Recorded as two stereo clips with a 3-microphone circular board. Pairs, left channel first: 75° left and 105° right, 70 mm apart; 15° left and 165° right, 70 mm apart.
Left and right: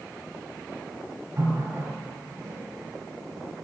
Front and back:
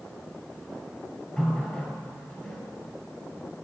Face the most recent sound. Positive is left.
turn(degrees=-60)